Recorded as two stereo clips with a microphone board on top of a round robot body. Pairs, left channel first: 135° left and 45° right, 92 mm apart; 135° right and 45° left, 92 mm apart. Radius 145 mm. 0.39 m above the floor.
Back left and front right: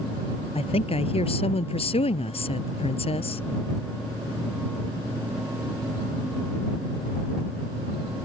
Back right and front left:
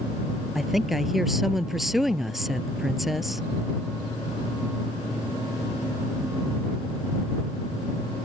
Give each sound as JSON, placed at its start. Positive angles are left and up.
{"t": 0.6, "sound": "a woman speaking", "azimuth_deg": 135}